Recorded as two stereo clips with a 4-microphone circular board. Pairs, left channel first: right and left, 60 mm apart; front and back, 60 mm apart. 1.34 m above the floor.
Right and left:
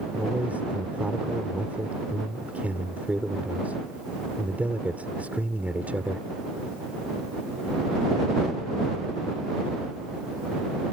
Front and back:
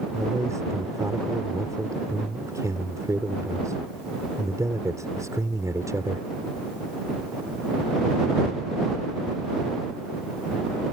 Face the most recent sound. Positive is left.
turn(degrees=155)